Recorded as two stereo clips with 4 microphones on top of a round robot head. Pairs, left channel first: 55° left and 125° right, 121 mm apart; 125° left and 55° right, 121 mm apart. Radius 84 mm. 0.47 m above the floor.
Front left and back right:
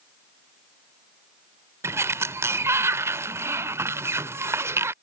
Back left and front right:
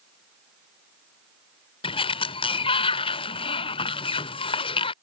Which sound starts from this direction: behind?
A sliding door, at 1.8 s.